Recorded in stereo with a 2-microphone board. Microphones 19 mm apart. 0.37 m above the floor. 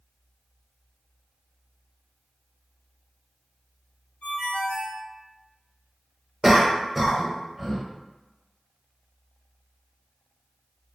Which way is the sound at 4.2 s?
65° left (ahead or behind).